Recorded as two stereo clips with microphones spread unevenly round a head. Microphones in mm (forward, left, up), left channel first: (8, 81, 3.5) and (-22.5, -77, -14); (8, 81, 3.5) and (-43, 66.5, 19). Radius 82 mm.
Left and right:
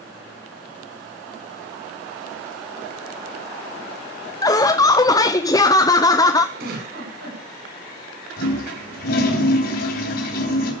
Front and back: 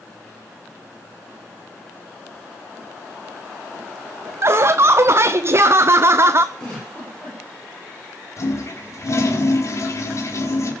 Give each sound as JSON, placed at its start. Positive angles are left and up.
{"t": 4.4, "sound": "laughter", "azimuth_deg": 150, "distance_m": 0.7}
{"t": 6.5, "sound": "a giggle", "azimuth_deg": -70, "distance_m": 8.5}
{"t": 8.4, "sound": "a toilet flushing", "azimuth_deg": 55, "distance_m": 3.5}